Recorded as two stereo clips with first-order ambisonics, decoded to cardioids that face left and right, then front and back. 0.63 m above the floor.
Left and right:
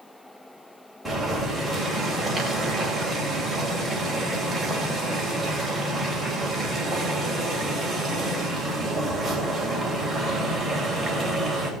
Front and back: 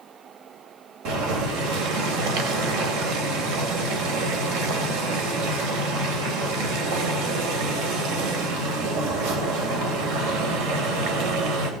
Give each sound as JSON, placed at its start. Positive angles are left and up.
{"t": 1.1, "sound": "boiling", "azimuth_deg": 180, "distance_m": 3.0}